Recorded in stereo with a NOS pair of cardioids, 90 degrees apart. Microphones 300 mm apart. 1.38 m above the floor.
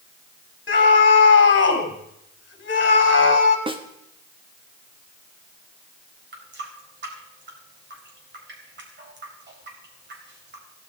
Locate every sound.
0.7 s a scream: 40° left, 4 m
3.7 s a snare drum: 20° right, 1.6 m
6.3 s a running tap: 35° right, 4.5 m